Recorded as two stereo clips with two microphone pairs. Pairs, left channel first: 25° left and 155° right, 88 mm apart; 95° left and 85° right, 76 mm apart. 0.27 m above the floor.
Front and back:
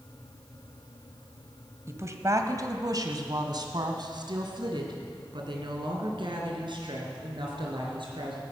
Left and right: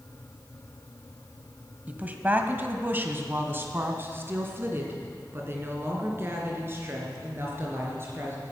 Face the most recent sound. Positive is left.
turn(degrees=-140)